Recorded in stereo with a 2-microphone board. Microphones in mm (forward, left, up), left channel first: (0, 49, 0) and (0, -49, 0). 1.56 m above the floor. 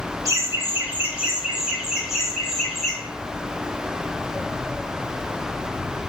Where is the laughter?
35° right (ahead or behind), 1.0 m; by 3.0 s centre (ahead or behind), 4 m.